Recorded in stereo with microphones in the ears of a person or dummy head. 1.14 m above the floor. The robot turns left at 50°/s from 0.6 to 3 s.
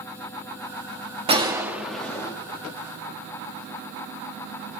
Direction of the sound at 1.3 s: 150° right.